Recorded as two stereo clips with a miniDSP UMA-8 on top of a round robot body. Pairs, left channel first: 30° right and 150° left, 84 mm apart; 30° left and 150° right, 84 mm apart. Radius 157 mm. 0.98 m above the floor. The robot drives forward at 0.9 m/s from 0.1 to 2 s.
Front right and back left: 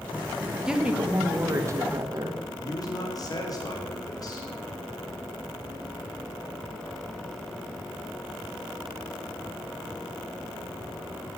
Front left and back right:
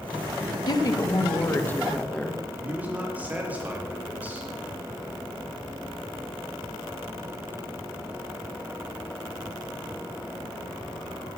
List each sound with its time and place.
0.7 s a woman speaking: 70° left, 2 m; by 2.4 s 105° left, 2.0 m
2.6 s a man speaking: 75° right, 3.5 m